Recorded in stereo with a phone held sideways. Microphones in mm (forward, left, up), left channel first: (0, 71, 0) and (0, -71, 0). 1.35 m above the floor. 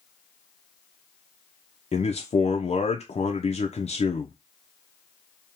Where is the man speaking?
55° left (ahead or behind), 0.5 m.